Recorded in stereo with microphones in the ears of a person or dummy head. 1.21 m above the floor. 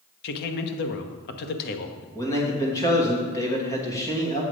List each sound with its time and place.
0.2 s a man speaking: 55° left (ahead or behind), 1.0 m
2.1 s a man speaking: 20° left (ahead or behind), 2 m